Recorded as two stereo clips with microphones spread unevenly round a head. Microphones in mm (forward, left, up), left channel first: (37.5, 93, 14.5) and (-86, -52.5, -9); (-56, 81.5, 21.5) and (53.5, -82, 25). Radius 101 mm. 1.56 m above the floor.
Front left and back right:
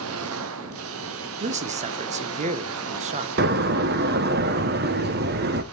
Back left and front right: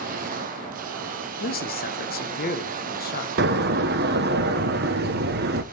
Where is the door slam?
90° right, 0.7 m.